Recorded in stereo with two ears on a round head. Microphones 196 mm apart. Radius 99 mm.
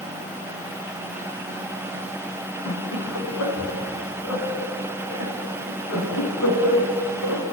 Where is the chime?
I don't hear a chime.